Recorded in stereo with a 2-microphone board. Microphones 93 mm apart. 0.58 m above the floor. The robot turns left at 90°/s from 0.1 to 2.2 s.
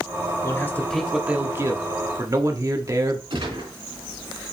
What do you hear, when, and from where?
0.4 s a man speaking: 55° left, 0.9 m; by 3.2 s 105° right, 0.9 m
3.3 s a gunshot: 65° right (ahead or behind), 3.5 m